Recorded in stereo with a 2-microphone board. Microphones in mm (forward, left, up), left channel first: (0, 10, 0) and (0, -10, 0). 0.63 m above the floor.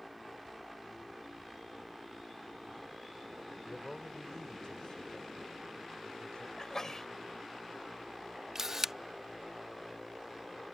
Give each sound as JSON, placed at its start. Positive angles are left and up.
{"t": 3.7, "sound": "a man speaking", "side_deg": 55}
{"t": 6.6, "sound": "a sneeze", "side_deg": 35}
{"t": 8.6, "sound": "a camera shutter", "side_deg": -30}